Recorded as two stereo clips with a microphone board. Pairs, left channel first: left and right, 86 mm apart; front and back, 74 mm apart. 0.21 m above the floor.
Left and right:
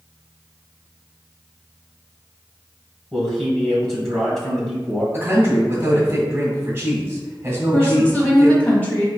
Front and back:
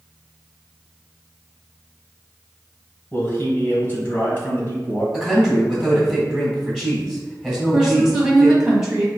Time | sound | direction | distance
3.1 | a man speaking | 15° left | 1.4 m
5.1 | a man speaking | 105° right | 1.7 m
7.7 | a woman speaking | 115° left | 1.2 m